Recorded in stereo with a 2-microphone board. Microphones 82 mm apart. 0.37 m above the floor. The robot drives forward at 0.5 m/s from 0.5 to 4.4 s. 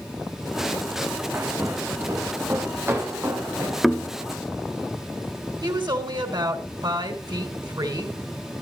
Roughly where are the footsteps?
Right.